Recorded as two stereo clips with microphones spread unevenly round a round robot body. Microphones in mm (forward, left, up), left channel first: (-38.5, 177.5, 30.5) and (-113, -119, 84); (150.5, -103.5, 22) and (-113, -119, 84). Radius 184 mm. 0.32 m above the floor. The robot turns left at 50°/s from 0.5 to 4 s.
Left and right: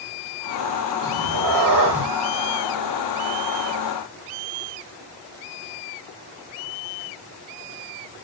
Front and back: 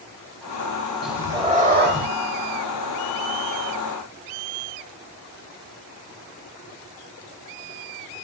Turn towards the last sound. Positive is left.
turn(degrees=130)